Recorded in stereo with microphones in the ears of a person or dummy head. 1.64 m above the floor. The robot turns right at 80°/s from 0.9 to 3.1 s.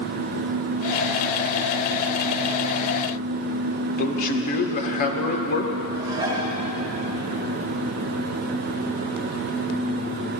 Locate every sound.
4.0 s a man speaking: 45° left (ahead or behind), 1.7 m
6.0 s dishes clattering: 20° right (ahead or behind), 2 m